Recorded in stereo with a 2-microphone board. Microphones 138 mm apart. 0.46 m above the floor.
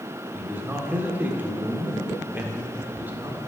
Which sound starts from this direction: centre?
A man speaking, at 0.3 s.